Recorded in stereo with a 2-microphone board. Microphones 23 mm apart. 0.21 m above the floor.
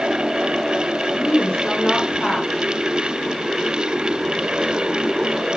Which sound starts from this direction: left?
A woman speaking, at 1.1 s.